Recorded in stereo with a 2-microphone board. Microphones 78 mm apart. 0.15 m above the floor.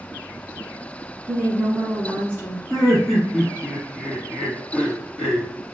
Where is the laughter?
5° left (ahead or behind), 1.1 m.